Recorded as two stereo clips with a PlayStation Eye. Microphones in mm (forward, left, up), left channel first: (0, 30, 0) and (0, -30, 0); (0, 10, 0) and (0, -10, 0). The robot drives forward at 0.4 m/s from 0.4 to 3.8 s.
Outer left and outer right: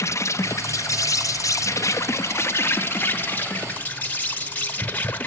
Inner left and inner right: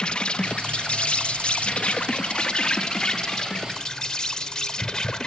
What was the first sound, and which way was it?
An insect, 55° left (ahead or behind).